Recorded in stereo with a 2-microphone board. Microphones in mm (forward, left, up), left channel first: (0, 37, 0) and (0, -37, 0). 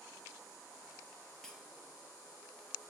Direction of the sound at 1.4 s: 10° left (ahead or behind).